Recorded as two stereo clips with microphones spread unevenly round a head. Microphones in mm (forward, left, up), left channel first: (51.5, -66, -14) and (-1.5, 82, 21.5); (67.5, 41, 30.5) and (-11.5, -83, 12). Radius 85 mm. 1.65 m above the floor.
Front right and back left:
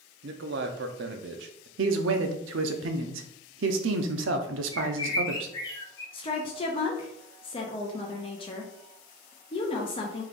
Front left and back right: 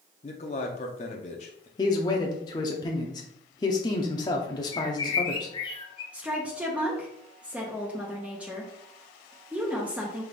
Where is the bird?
Straight ahead, 0.8 m.